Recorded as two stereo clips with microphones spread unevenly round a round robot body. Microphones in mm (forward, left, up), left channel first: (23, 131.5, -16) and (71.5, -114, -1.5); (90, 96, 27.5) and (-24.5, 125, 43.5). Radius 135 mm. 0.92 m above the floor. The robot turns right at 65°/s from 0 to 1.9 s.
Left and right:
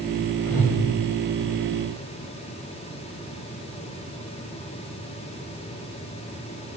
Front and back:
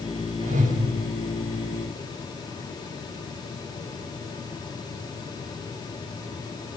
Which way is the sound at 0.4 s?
155° left.